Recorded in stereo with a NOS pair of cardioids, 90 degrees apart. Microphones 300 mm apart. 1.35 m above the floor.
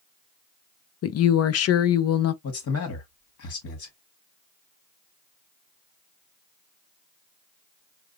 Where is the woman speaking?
55° left, 0.7 m.